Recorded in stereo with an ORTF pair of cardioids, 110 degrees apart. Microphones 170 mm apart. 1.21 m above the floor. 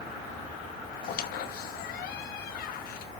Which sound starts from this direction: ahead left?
A squeak, at 1.0 s.